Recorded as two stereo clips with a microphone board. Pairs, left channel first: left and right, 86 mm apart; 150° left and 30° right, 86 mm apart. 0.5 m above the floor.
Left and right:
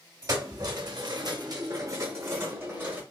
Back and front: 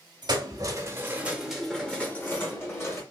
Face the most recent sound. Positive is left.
turn(degrees=-155)